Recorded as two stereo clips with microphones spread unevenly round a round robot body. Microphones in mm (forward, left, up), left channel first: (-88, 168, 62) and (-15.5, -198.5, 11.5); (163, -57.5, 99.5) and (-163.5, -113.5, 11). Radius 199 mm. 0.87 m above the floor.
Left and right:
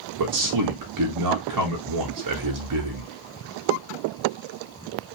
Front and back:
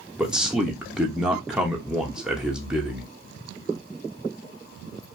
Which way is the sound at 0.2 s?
90° right.